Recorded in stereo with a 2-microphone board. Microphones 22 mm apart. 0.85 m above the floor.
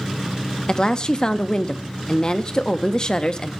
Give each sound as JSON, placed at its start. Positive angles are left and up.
{"t": 0.7, "sound": "a woman speaking", "side_deg": 40, "distance_m": 0.7}